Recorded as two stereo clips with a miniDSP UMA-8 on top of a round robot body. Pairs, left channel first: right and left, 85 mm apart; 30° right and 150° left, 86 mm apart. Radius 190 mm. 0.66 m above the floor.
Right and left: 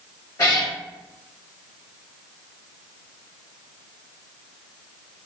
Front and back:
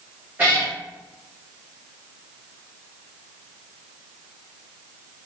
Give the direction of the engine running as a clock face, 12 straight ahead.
No engine running in this recording.